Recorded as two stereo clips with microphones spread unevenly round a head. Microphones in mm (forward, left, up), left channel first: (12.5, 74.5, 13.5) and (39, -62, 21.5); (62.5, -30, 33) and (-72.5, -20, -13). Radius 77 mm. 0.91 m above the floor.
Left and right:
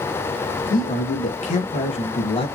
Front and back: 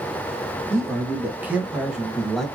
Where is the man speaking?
115° left, 1.9 m; by 2.5 s 100° left, 1.0 m.